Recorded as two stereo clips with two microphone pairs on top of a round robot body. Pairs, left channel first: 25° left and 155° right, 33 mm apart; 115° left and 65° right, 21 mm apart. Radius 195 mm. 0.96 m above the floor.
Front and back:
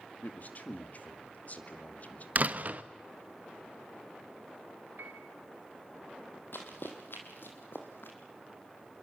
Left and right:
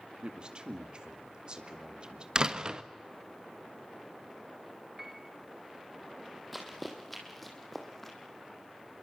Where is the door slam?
115° right, 1.4 m.